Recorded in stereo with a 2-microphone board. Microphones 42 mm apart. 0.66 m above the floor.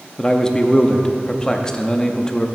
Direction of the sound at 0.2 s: 20° left (ahead or behind).